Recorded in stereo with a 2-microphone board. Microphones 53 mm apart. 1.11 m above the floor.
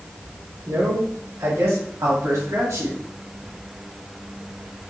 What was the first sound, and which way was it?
A man speaking, 85° right.